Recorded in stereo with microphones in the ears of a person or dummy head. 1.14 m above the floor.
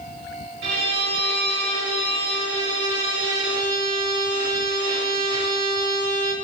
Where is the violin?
55° right (ahead or behind), 1.1 m.